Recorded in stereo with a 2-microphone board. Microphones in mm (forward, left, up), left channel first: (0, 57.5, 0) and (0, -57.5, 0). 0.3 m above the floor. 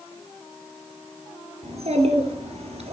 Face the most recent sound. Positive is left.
turn(degrees=-75)  # may be behind; listen again after turning